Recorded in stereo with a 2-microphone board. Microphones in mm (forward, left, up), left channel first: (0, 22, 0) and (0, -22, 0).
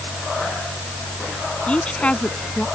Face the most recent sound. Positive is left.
turn(degrees=25)  # may be behind; listen again after turning